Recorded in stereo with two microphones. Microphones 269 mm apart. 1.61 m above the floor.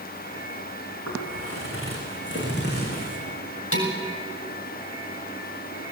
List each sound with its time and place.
1.1 s footsteps: 60° left (ahead or behind), 6.5 m; by 3.2 s 30° left (ahead or behind), 4.5 m
3.7 s dishes clattering: 55° left (ahead or behind), 4.5 m